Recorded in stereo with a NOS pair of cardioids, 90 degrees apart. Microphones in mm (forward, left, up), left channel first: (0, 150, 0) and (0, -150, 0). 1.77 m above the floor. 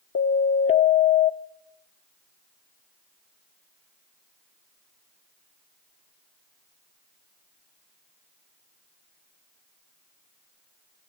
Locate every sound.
0.1 s a siren: 45° left, 2.5 m